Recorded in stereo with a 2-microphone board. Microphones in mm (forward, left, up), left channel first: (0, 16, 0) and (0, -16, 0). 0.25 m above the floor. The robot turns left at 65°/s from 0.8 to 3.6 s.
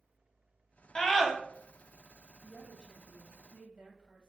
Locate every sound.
0.9 s a scream: 25° left (ahead or behind), 1.1 m; by 1.3 s 10° left (ahead or behind), 1.1 m
2.4 s a woman speaking: 25° right, 1.2 m; by 4.3 s 105° right, 1.2 m